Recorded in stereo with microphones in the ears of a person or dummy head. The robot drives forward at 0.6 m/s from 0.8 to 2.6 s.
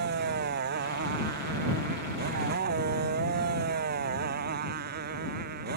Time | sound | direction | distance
0.0 | a motorcycle | 55° right (ahead or behind) | ?